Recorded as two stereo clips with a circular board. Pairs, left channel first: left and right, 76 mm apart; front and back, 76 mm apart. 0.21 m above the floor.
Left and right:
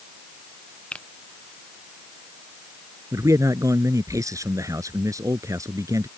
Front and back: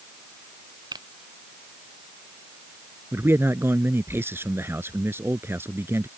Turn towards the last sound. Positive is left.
turn(degrees=-125)